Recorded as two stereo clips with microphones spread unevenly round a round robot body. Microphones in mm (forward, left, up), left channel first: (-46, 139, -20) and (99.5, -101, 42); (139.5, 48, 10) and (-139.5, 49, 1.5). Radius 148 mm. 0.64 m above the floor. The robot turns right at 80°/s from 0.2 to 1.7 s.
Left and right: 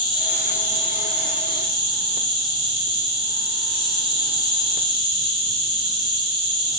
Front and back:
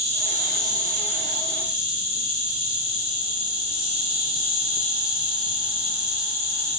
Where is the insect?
145° left, 1.1 m; by 6.8 s 95° right, 1.1 m.